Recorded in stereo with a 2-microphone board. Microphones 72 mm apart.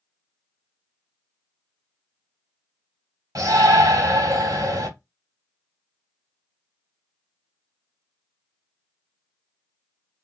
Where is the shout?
60° right (ahead or behind), 2.5 m.